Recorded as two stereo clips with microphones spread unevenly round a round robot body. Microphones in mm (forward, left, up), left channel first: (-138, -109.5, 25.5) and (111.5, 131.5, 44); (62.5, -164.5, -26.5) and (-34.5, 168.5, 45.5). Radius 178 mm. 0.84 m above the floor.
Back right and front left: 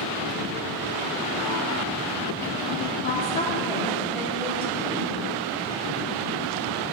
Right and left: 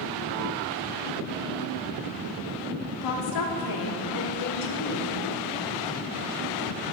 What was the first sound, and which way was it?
A woman speaking, 80° right.